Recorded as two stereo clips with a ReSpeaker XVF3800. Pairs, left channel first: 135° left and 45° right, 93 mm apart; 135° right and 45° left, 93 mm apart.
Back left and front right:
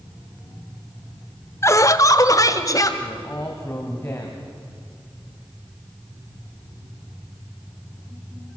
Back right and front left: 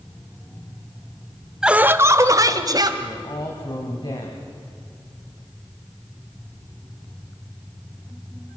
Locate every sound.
1.6 s laughter: 120° left, 0.8 m; by 2.9 s 85° left, 2.0 m
3.0 s a man speaking: 165° right, 2.5 m